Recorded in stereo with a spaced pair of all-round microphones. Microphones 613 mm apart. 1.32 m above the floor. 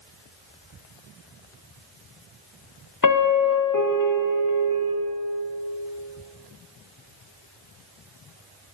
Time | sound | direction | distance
3.0 | a piano | 35° left (ahead or behind) | 0.7 m